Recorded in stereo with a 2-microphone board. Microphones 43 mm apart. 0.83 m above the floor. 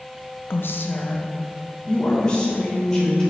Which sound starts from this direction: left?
A woman speaking, at 0.5 s.